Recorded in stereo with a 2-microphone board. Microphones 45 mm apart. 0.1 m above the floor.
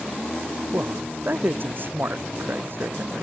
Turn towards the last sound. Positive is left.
turn(degrees=-50)  # may be behind; listen again after turning